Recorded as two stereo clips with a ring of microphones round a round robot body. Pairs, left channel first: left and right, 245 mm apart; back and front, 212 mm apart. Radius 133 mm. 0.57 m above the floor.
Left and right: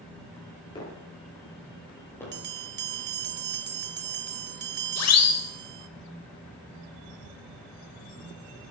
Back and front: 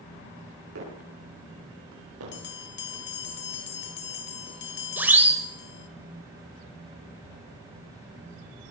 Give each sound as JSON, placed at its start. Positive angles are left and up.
{"t": 0.8, "sound": "footsteps", "azimuth_deg": 20, "distance_m": 8.5}
{"t": 2.3, "sound": "a bell", "azimuth_deg": -135, "distance_m": 1.1}
{"t": 5.0, "sound": "a siren", "azimuth_deg": 80, "distance_m": 3.0}